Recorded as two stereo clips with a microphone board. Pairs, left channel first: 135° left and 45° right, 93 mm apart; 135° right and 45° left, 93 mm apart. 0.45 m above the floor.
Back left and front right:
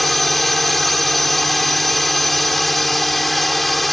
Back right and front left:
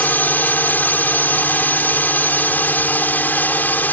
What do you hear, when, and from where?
0.0 s a drone: 140° right